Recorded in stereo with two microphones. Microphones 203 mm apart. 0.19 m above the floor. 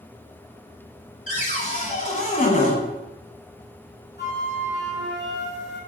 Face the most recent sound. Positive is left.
turn(degrees=55)  # may be behind; listen again after turning